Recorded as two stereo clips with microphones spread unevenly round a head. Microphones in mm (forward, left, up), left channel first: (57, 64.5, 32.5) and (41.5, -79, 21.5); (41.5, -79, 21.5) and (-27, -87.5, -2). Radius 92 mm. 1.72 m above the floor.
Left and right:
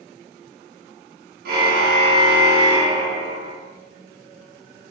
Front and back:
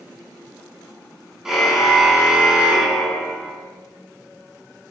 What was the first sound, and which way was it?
A car horn, 85° right.